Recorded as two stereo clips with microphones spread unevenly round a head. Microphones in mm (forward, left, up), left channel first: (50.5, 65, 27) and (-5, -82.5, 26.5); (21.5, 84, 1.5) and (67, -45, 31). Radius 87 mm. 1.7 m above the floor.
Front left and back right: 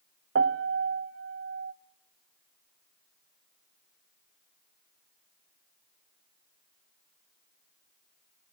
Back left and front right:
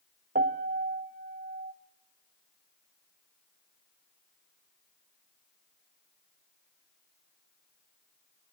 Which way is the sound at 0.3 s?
105° right.